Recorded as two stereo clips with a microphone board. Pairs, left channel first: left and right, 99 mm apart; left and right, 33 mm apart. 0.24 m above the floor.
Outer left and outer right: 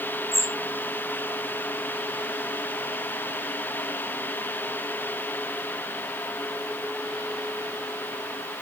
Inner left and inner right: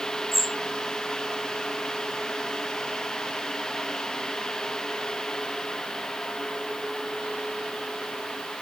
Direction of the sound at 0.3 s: 5° right (ahead or behind).